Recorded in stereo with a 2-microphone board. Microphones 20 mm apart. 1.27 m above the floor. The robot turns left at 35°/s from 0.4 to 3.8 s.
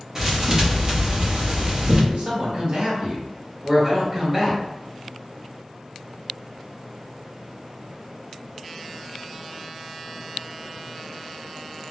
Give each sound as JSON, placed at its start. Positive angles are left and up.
{"t": 0.1, "sound": "a thud", "azimuth_deg": -40, "distance_m": 0.8}
{"t": 2.1, "sound": "a man speaking", "azimuth_deg": -110, "distance_m": 1.1}